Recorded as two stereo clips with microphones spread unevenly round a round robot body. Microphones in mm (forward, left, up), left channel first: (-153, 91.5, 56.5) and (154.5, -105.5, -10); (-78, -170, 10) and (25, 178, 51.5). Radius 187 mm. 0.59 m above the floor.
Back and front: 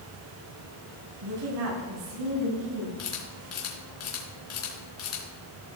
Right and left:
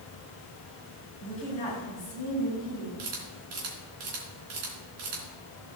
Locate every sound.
1.2 s a woman speaking: 35° right, 4 m
3.0 s a camera shutter: 95° left, 3.5 m